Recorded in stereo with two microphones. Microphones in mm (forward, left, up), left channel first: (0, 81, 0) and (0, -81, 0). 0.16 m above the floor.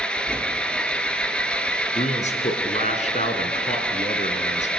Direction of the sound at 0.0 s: 5° left (ahead or behind).